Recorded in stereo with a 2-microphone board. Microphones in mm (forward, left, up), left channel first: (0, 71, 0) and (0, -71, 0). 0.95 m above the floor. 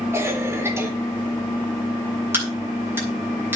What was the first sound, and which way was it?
A cough, 20° right (ahead or behind).